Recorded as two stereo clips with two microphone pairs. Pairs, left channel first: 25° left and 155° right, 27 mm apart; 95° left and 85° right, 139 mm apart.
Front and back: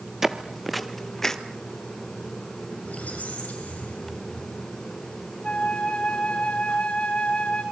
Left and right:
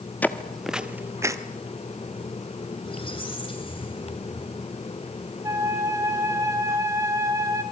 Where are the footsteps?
155° left, 1.5 m; by 1.4 s 35° right, 1.6 m.